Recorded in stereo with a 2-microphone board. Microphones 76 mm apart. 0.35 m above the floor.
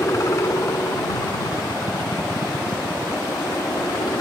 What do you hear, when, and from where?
0.0 s a helicopter: 40° left (ahead or behind); by 4.2 s 60° left (ahead or behind)